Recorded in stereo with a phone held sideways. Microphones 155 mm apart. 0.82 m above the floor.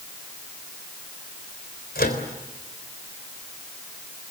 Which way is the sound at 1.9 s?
80° left.